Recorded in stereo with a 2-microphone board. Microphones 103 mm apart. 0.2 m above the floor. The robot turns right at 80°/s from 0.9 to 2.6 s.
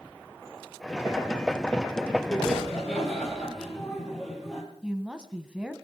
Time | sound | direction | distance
2.3 | laughter | 25° right (ahead or behind) | 5 m
4.8 | a woman speaking | 10° right (ahead or behind) | 1.3 m